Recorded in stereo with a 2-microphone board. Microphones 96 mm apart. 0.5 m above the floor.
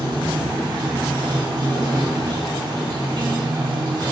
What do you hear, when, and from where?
0.0 s running water: 55° right (ahead or behind), 2.0 m